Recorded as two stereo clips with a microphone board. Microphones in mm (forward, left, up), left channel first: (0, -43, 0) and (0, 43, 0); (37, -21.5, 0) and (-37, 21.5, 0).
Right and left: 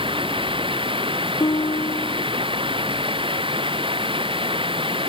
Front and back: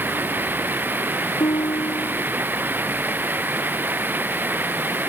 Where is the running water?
85° left.